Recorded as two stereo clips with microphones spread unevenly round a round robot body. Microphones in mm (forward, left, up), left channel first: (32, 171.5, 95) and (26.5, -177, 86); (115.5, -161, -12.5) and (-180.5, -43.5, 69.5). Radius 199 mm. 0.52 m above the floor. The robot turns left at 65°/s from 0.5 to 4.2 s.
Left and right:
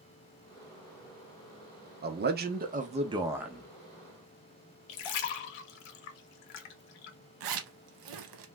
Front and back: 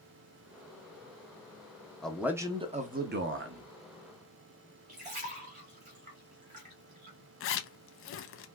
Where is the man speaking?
75° right, 0.8 m; by 3.7 s 175° left, 0.8 m.